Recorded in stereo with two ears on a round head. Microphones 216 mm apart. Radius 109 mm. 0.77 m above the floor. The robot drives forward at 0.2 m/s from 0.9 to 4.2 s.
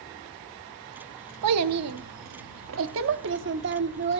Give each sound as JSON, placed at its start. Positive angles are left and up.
{"t": 1.4, "sound": "a child speaking", "side_deg": -80, "distance_m": 0.7}